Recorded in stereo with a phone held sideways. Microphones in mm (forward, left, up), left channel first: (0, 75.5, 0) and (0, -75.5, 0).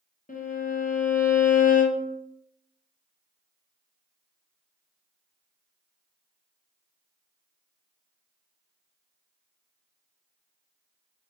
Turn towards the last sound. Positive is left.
turn(degrees=60)  # may be behind; listen again after turning